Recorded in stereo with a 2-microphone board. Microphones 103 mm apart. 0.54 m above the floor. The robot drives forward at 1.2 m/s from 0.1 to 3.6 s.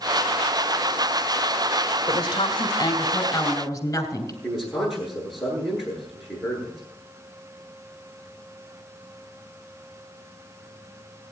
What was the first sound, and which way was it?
A woman speaking, 50° left (ahead or behind).